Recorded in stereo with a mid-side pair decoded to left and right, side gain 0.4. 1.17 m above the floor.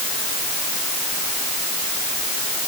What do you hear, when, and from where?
Only background noise.